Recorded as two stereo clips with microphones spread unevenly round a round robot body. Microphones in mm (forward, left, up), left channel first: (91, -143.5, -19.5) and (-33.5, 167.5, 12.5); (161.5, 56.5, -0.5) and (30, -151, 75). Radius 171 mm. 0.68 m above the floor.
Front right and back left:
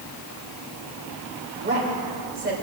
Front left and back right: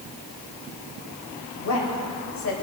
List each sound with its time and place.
1.6 s a woman speaking: 55° left, 4 m